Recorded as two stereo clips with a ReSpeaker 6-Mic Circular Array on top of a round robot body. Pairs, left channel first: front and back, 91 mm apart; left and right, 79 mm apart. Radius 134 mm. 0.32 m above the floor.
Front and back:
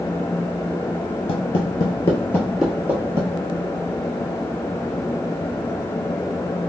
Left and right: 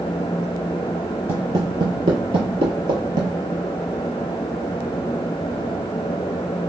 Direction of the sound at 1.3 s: 30° right.